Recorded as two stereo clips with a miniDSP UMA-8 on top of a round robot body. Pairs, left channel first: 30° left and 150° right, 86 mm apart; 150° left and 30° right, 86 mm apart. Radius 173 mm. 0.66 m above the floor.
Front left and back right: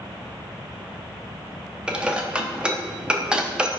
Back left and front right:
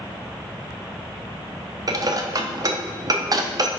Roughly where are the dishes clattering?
Right.